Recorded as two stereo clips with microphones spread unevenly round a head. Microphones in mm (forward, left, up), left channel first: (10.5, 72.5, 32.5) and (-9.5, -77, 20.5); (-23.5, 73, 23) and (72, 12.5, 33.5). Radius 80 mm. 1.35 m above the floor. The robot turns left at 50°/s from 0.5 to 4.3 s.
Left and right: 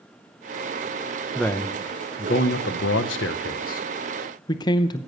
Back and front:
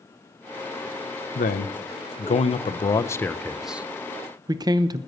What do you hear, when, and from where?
1.4 s a man speaking: 165° left, 0.7 m; by 5.0 s 20° left, 0.7 m